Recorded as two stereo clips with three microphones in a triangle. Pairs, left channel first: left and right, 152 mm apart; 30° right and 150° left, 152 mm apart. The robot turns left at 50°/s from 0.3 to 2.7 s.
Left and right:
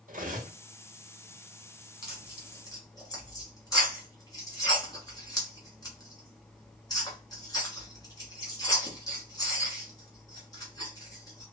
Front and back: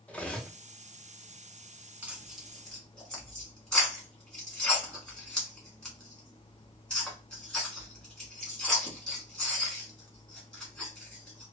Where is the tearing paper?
85° left, 1.3 m; by 11.4 s 50° left, 1.3 m.